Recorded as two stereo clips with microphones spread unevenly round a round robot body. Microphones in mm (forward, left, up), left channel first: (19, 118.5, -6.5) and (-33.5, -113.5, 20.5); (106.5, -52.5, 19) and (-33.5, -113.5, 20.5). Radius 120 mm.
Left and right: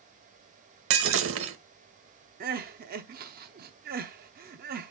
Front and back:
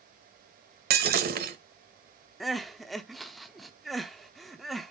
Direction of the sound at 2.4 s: 65° right.